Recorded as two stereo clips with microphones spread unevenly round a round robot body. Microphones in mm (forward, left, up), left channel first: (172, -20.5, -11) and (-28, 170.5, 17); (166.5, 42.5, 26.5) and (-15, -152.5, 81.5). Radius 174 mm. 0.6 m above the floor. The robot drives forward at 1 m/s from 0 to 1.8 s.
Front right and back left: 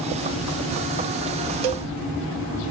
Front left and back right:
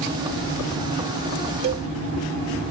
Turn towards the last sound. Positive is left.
turn(degrees=165)